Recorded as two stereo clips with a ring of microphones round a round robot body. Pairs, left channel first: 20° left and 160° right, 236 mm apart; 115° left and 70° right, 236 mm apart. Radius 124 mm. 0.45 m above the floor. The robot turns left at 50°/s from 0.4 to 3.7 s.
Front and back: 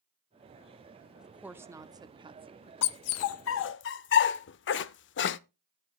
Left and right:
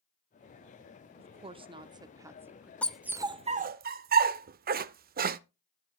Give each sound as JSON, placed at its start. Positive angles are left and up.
{"t": 1.2, "sound": "a woman speaking", "azimuth_deg": -70, "distance_m": 0.8}
{"t": 2.8, "sound": "a dog barking", "azimuth_deg": 30, "distance_m": 0.5}